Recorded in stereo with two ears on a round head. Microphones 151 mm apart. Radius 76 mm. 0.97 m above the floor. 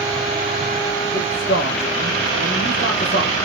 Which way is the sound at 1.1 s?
50° left (ahead or behind).